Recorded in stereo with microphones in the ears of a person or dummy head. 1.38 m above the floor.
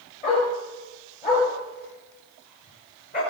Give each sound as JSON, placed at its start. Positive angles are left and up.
{"t": 0.2, "sound": "a dog barking", "side_deg": 40, "distance_m": 9.0}